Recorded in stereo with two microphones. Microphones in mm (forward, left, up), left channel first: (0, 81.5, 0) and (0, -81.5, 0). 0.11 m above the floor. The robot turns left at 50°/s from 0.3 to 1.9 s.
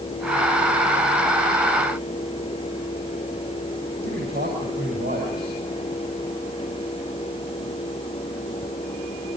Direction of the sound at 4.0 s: 75° right (ahead or behind).